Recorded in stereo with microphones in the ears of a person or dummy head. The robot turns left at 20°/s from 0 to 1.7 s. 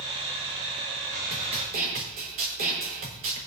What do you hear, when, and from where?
1.3 s a snare drum: 30° right (ahead or behind), 3.5 m; by 3.4 s 40° right (ahead or behind), 3.5 m